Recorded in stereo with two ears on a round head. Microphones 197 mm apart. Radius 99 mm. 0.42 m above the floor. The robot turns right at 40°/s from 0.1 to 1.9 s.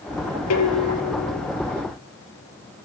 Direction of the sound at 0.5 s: 85° left.